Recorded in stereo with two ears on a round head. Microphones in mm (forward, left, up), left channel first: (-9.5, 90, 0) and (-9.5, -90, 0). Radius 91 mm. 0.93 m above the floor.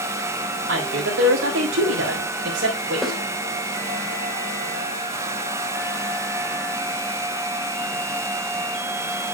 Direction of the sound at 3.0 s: Centre (ahead or behind).